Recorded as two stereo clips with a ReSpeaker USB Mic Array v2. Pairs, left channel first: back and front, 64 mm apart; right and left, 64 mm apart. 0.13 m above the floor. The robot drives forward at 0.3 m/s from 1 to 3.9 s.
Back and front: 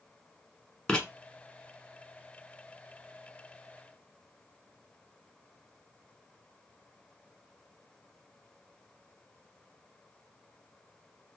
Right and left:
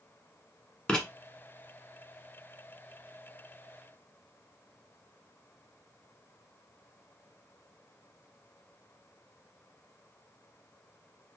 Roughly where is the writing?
Behind right.